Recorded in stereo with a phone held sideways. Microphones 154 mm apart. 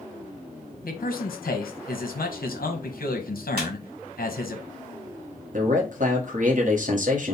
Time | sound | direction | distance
0.8 | a man speaking | 75° left (ahead or behind) | 0.9 m
3.6 | a squeak | 75° right (ahead or behind) | 1.9 m
5.5 | a man speaking | 60° right (ahead or behind) | 1.0 m